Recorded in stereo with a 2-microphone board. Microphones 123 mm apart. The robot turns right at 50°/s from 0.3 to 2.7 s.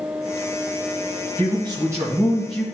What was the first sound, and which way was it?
A man speaking, 55° right.